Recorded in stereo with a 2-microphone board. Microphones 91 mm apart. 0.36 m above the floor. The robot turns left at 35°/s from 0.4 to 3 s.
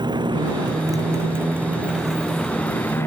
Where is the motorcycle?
50° right (ahead or behind); by 3.1 s 25° left (ahead or behind).